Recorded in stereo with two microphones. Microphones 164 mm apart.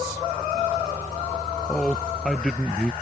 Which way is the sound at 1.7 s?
5° left (ahead or behind).